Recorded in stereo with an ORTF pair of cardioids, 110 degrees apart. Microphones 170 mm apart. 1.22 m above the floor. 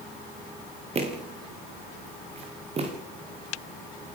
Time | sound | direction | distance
0.9 | footsteps | 40° right | 5.5 m